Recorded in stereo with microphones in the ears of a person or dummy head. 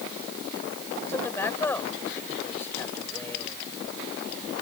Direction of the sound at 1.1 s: 15° left (ahead or behind).